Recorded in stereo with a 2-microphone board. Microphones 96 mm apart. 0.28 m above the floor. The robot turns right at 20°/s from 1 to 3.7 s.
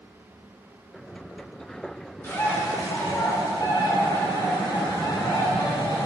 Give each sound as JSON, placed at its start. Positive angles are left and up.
{"t": 2.2, "sound": "a bird", "side_deg": 25, "distance_m": 3.0}